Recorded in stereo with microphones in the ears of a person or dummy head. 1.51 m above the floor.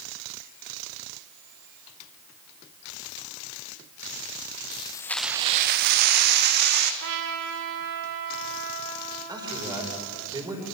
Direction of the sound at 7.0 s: 65° right (ahead or behind).